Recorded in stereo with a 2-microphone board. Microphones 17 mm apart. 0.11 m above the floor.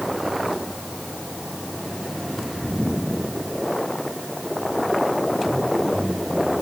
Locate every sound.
Only background noise.